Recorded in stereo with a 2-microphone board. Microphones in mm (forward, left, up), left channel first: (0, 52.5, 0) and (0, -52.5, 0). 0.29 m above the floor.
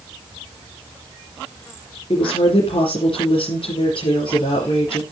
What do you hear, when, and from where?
2.1 s a woman speaking: 55° left (ahead or behind), 5.5 m